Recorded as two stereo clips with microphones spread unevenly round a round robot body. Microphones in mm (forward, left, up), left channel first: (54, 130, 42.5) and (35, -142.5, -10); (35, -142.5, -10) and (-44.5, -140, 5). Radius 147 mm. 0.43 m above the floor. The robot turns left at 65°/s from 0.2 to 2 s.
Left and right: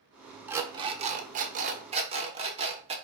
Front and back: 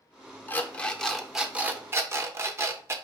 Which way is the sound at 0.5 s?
30° right.